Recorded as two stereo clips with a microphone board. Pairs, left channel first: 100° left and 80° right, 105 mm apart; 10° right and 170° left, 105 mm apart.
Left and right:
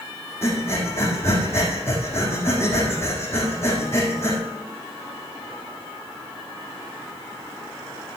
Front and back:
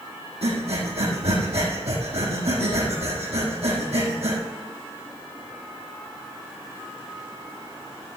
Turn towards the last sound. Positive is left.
turn(degrees=165)